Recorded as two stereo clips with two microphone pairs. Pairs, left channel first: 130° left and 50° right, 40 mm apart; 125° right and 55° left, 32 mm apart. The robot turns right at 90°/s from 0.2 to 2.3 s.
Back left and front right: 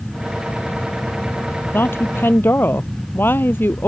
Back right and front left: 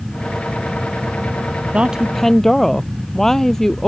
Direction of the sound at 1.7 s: 100° left.